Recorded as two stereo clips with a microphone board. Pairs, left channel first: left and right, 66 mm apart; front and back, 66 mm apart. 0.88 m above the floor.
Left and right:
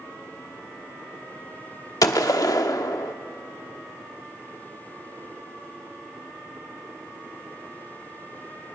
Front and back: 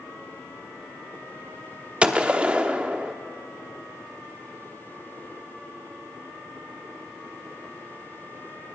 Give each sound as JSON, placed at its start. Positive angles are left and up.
{"t": 2.0, "sound": "a gunshot", "azimuth_deg": 110, "distance_m": 0.9}